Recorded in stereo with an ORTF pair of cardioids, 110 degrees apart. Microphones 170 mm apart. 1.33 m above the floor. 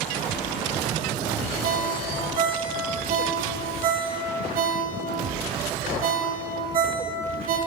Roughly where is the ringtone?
Ahead right.